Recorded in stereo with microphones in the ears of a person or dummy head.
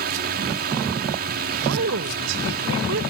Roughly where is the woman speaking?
Right.